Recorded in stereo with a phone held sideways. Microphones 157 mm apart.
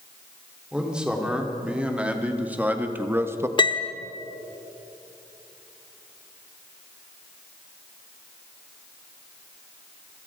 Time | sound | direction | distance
0.7 | a man speaking | 5° right (ahead or behind) | 3.5 m
3.6 | a piano | 30° left (ahead or behind) | 1.1 m